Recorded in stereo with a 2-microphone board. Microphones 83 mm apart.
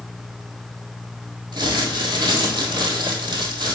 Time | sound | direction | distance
1.5 | crumpling | 60° right (ahead or behind) | 1.6 m